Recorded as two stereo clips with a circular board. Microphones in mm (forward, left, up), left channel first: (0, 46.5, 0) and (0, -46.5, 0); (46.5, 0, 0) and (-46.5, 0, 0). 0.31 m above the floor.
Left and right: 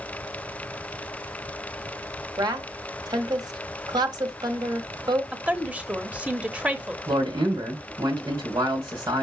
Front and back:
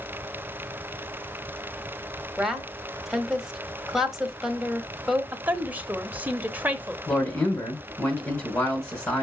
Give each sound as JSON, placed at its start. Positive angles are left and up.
{"t": 2.4, "sound": "a woman speaking", "azimuth_deg": -95, "distance_m": 1.3}
{"t": 5.3, "sound": "a woman speaking", "azimuth_deg": -145, "distance_m": 0.9}
{"t": 7.1, "sound": "a man speaking", "azimuth_deg": -50, "distance_m": 2.0}